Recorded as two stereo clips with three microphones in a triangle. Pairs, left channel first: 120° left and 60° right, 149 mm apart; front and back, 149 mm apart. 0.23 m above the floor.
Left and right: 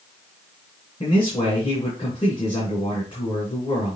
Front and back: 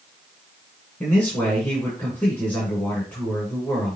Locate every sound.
1.0 s a man speaking: 80° left, 3 m